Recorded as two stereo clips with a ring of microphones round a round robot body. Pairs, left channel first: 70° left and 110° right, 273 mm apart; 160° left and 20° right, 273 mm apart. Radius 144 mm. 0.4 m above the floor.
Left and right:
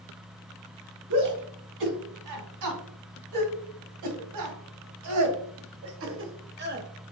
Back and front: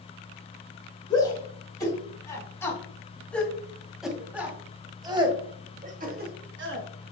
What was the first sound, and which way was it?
A shout, 130° right.